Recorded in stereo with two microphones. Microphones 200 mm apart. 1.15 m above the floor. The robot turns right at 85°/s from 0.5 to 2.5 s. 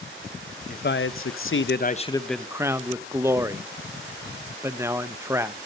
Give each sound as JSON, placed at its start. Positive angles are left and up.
{"t": 0.7, "sound": "a man speaking", "azimuth_deg": 40, "distance_m": 0.8}